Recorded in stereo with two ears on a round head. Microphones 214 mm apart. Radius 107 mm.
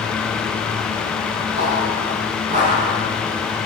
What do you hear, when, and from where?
1.6 s footsteps: 30° right (ahead or behind), 6 m; by 3.6 s 25° right (ahead or behind), 6.5 m